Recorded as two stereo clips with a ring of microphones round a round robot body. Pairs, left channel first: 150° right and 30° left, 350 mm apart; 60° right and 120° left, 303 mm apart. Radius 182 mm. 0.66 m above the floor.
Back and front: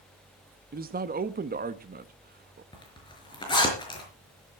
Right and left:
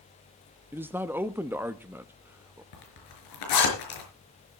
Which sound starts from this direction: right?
A zipper, at 2.7 s.